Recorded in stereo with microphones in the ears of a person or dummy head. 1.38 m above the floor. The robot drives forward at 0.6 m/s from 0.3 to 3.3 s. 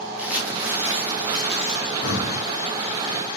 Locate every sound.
0.2 s crumpling: 5° right (ahead or behind), 2.5 m
2.0 s breathing: 80° left, 3 m; by 2.4 s 75° left (ahead or behind), 3 m